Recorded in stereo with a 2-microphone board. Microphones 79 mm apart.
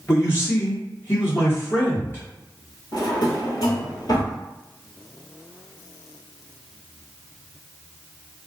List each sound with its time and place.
0.1 s a man speaking: 30° left (ahead or behind), 1.4 m
2.9 s a drawer: 60° left (ahead or behind), 1.1 m